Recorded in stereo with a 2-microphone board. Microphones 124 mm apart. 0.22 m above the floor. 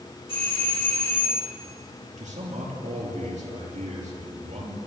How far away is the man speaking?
About 4.5 m.